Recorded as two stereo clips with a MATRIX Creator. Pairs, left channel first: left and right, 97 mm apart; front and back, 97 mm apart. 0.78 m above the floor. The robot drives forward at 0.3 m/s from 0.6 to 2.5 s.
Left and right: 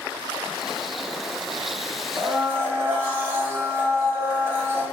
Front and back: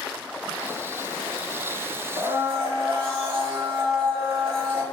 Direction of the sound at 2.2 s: 155° right.